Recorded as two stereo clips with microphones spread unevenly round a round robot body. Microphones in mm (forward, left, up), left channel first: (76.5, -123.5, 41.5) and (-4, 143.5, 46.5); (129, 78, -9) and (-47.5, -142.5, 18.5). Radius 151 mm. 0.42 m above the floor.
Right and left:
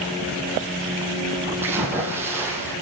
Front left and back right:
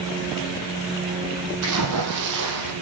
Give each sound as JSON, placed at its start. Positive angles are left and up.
{"t": 1.6, "sound": "a splash", "azimuth_deg": -170, "distance_m": 2.5}